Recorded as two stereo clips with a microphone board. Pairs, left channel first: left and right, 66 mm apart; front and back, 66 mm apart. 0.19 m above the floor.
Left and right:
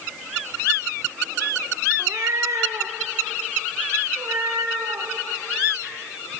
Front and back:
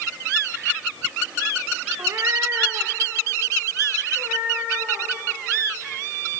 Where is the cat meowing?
140° right, 0.8 m; by 5.1 s 120° right, 5 m.